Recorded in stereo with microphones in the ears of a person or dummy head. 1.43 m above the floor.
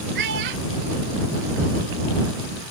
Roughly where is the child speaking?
Right.